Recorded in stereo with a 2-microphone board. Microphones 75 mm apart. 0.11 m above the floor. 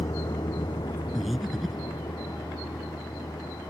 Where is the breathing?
Centre (ahead or behind).